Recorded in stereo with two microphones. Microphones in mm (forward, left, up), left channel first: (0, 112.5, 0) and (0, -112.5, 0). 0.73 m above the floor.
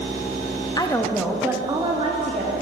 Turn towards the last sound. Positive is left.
turn(degrees=-35)  # may be behind; listen again after turning